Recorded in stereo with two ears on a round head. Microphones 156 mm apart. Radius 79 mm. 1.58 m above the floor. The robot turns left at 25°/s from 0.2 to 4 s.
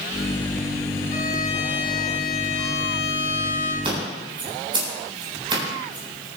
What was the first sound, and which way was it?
A violin, 125° left.